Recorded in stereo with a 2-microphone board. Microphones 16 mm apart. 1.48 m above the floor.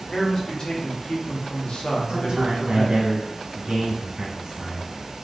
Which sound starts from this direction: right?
A man speaking, at 2.1 s.